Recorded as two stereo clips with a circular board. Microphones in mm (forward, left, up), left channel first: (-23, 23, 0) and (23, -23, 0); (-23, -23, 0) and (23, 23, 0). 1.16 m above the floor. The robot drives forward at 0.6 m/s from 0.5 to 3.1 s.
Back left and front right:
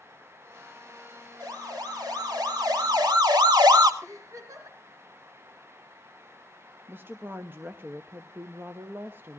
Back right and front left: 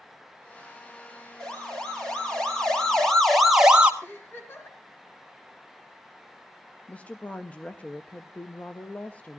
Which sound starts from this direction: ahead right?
A siren, at 1.4 s.